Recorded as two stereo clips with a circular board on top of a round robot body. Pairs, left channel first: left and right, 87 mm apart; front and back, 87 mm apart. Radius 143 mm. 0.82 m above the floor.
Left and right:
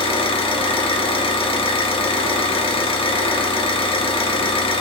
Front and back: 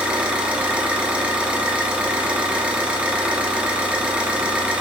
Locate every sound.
0.0 s an engine running: 105° left, 0.8 m